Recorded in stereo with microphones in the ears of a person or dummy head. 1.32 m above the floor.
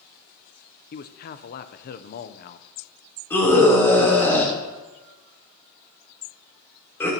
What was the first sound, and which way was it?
A man speaking, 50° left (ahead or behind).